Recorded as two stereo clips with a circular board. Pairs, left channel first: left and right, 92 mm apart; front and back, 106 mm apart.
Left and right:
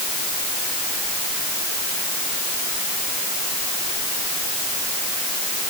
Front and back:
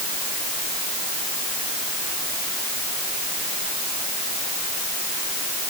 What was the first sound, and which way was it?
Only background noise.